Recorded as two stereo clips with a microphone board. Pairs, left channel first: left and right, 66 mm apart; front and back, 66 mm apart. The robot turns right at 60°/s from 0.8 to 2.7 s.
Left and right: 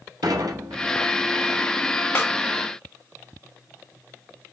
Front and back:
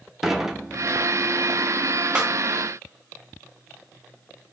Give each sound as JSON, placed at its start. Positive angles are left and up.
{"t": 0.2, "sound": "dishes clattering", "azimuth_deg": -95, "distance_m": 0.6}
{"t": 2.1, "sound": "a snare drum", "azimuth_deg": 115, "distance_m": 0.8}